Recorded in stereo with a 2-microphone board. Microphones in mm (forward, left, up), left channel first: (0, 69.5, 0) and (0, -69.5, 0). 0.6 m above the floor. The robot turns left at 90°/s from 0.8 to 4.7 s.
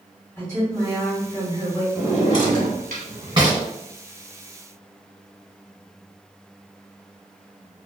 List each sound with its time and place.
0.4 s a woman speaking: 10° left, 1.7 m; by 1.9 s 85° right, 1.7 m
1.9 s a drawer: 15° right (ahead or behind), 1.2 m